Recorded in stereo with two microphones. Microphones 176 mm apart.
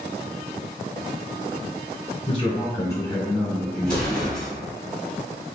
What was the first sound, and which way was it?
A man speaking, 30° left (ahead or behind).